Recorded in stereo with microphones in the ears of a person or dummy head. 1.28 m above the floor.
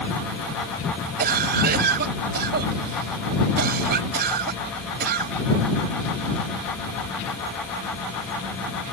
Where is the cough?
55° right (ahead or behind).